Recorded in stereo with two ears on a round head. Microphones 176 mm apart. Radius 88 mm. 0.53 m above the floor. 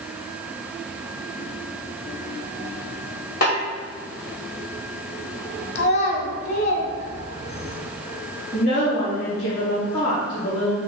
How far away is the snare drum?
About 2.5 m.